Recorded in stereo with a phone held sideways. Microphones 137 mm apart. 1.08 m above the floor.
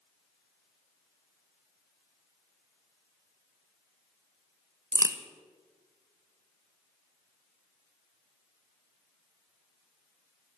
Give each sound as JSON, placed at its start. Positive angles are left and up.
{"t": 4.9, "sound": "a crack", "side_deg": -25, "distance_m": 0.8}